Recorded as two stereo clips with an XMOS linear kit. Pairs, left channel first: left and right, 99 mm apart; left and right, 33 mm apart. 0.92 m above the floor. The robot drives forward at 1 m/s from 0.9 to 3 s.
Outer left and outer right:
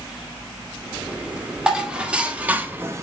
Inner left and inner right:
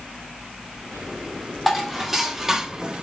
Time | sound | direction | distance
1.7 | dishes clattering | 10° right (ahead or behind) | 1.8 m